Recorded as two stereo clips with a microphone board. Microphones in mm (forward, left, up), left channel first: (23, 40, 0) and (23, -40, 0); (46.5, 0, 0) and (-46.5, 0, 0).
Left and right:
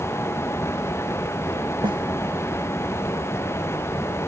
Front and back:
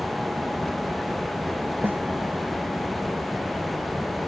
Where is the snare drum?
110° right.